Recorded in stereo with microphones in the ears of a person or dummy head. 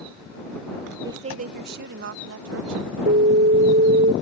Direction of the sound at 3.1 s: 40° right (ahead or behind).